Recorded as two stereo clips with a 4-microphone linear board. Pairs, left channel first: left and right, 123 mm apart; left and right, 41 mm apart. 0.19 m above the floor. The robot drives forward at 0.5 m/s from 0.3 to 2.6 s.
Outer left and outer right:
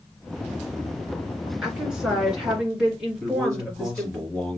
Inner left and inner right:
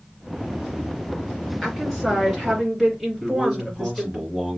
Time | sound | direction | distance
1.6 | a woman speaking | 5° right (ahead or behind) | 2.5 m
3.2 | a man speaking | centre (ahead or behind) | 4.5 m